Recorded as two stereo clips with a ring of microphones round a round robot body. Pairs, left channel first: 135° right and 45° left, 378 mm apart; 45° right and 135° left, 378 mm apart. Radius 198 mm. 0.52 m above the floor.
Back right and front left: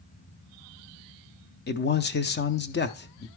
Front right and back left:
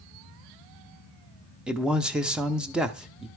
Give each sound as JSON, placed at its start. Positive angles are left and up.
{"t": 1.7, "sound": "a man speaking", "azimuth_deg": -140, "distance_m": 0.6}